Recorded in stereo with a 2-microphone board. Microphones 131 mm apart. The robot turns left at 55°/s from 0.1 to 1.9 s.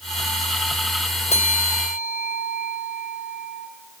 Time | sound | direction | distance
1.3 | a bell | 120° left | 2.5 m